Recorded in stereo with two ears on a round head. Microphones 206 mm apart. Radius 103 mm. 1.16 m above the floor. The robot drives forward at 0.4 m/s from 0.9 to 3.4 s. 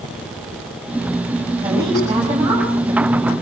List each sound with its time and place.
1.6 s a woman speaking: 15° right (ahead or behind), 7 m; by 3.3 s 20° right (ahead or behind), 6 m